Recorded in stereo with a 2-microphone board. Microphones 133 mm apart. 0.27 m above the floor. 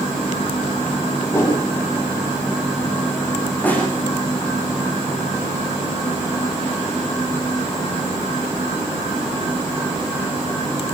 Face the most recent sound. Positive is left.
turn(degrees=10)  # may be behind; listen again after turning